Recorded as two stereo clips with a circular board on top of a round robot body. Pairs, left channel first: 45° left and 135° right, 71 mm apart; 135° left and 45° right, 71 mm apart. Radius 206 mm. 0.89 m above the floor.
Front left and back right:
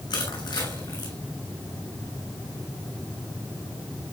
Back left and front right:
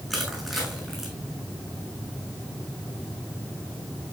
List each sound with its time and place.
0.1 s crushing: 45° left, 7 m